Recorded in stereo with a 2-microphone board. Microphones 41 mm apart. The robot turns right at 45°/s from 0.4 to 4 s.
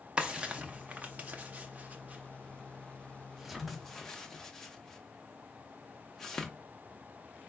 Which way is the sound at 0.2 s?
20° right (ahead or behind).